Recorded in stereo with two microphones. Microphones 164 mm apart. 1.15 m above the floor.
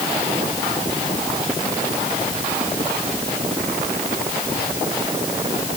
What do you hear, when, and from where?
Only background noise.